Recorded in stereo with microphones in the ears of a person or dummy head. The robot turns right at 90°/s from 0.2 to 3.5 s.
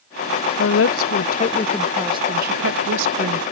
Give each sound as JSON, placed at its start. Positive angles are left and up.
{"t": 0.6, "sound": "a woman speaking", "azimuth_deg": 65}